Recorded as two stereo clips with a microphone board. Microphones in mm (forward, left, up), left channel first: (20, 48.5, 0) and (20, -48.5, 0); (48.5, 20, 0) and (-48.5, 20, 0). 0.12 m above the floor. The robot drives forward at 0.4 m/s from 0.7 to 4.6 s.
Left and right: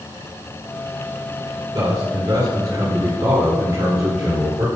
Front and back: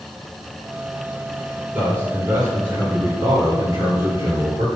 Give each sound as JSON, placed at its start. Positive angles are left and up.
{"t": 1.7, "sound": "a man speaking", "azimuth_deg": -120, "distance_m": 2.0}